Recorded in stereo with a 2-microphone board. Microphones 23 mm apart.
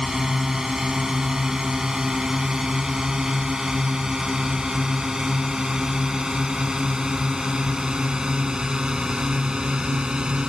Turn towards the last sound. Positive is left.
turn(degrees=-35)  # may be behind; listen again after turning